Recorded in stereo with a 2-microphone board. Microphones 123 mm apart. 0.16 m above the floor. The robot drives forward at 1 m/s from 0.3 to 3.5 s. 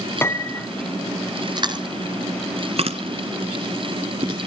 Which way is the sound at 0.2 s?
20° left (ahead or behind).